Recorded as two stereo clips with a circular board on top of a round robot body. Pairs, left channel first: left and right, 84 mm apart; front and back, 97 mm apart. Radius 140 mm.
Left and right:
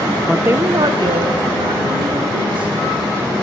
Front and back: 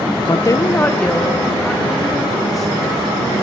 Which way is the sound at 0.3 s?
5° right.